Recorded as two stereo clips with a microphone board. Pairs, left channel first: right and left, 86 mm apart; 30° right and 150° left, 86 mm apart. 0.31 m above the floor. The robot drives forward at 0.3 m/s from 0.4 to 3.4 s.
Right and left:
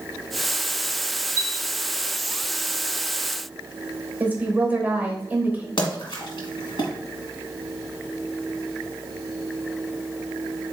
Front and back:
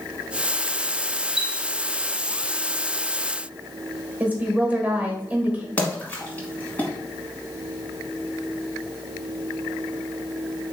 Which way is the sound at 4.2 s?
110° left.